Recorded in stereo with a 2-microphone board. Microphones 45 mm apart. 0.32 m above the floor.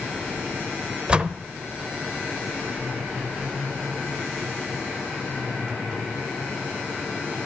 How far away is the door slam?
About 0.5 m.